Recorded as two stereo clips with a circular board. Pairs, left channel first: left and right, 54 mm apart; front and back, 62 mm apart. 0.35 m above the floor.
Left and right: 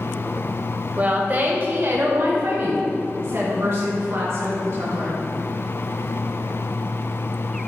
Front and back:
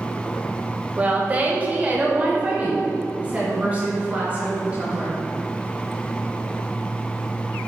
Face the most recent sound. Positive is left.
turn(degrees=-115)